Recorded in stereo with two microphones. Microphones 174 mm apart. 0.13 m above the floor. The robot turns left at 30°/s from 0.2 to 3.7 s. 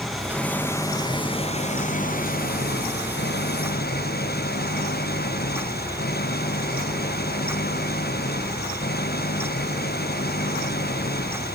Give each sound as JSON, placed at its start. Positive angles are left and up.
{"t": 0.0, "sound": "an engine running", "azimuth_deg": 180}